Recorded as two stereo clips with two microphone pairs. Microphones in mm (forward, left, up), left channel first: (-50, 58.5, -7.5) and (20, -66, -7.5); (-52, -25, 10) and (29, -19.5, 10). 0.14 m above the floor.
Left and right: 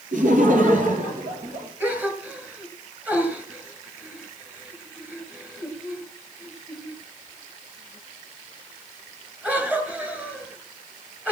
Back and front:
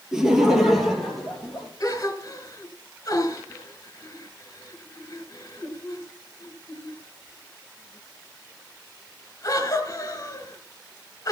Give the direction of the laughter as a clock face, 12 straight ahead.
3 o'clock.